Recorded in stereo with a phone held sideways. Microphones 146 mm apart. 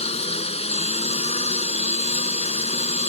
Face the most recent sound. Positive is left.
turn(degrees=45)  # may be behind; listen again after turning